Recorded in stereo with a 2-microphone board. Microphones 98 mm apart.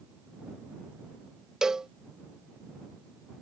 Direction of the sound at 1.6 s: 5° right (ahead or behind).